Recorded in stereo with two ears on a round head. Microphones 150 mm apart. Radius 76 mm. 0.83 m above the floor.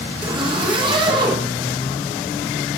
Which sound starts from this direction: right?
A zipper, at 0.2 s.